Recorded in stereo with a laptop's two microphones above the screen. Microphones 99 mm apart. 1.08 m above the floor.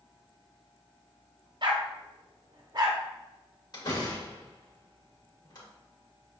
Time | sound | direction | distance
1.6 | a dog barking | 50° right (ahead or behind) | 0.8 m
3.7 | a door slam | 50° left (ahead or behind) | 2 m